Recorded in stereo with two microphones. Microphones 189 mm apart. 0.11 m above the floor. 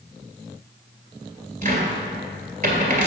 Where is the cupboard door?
40° right (ahead or behind), 1.8 m.